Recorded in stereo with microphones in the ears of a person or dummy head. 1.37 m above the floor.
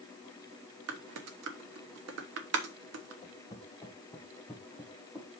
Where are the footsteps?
20° left (ahead or behind), 2 m; by 5.3 s 10° right (ahead or behind), 2.5 m.